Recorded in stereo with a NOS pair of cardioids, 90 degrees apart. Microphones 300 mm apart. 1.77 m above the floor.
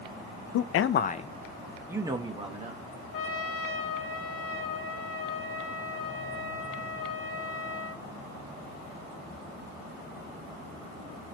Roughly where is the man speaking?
Ahead left.